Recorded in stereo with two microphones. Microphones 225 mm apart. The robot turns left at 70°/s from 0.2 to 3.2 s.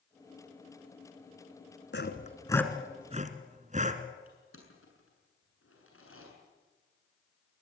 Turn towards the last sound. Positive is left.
turn(degrees=70)  # may be behind; listen again after turning